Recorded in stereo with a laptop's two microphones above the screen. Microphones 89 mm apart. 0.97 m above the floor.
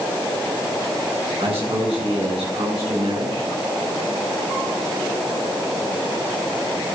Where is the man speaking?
85° right, 8.5 m; by 3.5 s 80° right, 10 m.